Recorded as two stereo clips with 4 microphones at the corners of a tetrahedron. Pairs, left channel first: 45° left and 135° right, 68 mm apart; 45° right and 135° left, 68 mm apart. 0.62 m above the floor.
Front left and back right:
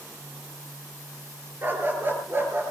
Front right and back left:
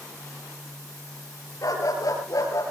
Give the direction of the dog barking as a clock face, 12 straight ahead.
3 o'clock.